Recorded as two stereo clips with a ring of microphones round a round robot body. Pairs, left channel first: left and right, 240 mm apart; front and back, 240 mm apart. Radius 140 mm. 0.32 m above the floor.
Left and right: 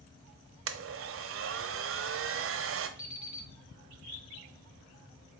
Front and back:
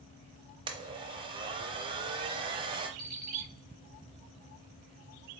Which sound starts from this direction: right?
A blender, at 0.7 s.